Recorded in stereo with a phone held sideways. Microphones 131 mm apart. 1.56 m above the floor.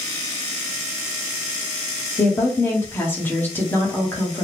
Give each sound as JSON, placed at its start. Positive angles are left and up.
{"t": 2.2, "sound": "a woman speaking", "side_deg": 15, "distance_m": 1.4}